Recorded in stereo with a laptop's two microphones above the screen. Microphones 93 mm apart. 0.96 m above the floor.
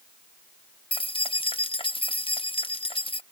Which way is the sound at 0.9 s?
70° left (ahead or behind).